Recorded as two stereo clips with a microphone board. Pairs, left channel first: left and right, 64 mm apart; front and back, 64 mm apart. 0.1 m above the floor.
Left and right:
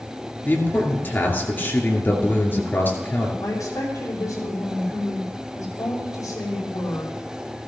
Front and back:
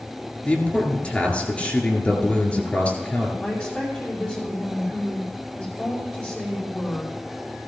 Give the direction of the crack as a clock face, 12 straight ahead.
No crack in this recording.